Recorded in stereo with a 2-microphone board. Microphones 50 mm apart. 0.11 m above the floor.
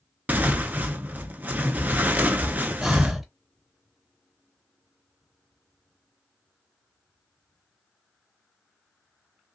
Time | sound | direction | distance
0.3 | tearing paper | 35° right (ahead or behind) | 0.5 m
2.8 | breathing | 5° right (ahead or behind) | 0.6 m